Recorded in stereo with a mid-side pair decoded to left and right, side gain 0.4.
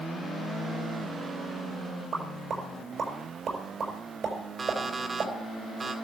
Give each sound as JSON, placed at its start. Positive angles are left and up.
{"t": 2.1, "sound": "a pop", "azimuth_deg": -55, "distance_m": 5.5}
{"t": 4.6, "sound": "an alarm clock", "azimuth_deg": -40, "distance_m": 2.0}